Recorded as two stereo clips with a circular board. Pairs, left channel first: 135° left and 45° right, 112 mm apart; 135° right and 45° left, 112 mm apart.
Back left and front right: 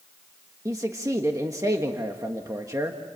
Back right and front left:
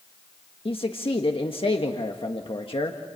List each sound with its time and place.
0.7 s a man speaking: 105° right, 1.5 m